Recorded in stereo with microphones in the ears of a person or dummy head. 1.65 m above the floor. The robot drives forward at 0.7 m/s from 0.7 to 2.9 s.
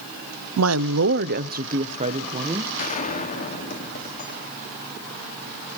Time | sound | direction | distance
0.6 | a woman speaking | 75° right (ahead or behind) | 0.6 m
2.8 | a gunshot | 45° left (ahead or behind) | 2 m